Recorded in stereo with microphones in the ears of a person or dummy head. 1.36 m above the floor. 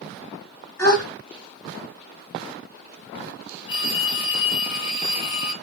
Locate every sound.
0.8 s a gasp: 15° left (ahead or behind), 2 m
3.7 s a phone ringing: 35° left (ahead or behind), 1.1 m